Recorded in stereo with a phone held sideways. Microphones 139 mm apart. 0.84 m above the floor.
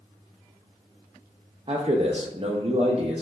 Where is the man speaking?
45° right (ahead or behind), 0.5 m.